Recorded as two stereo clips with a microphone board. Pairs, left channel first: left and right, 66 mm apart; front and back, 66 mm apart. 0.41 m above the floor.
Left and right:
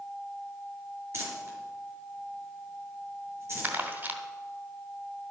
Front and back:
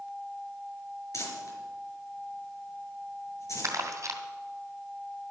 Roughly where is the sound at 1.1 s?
Ahead right.